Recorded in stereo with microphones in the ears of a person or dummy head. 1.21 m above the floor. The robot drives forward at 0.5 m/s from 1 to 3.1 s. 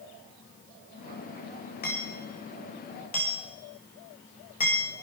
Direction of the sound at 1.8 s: 40° left (ahead or behind).